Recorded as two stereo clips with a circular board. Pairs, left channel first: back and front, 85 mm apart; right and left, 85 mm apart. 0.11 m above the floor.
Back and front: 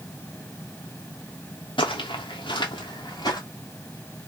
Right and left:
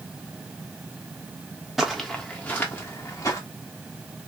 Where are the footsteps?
Straight behind, 1.0 m; by 3.4 s 140° right, 1.5 m.